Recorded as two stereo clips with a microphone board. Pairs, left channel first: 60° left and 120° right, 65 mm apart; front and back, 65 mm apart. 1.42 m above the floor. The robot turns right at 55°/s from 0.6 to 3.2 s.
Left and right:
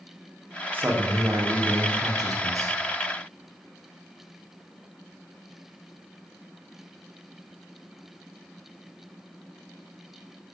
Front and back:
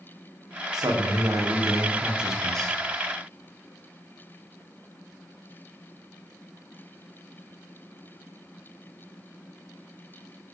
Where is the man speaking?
Straight behind, 1.0 m; by 2.8 s 70° right, 1.0 m.